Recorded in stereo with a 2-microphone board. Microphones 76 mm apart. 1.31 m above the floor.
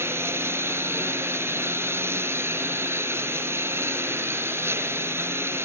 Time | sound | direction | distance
0.0 | a lawn mower | 35° right (ahead or behind) | ?